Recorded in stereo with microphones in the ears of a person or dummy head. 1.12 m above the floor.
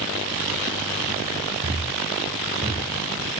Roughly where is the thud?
Right.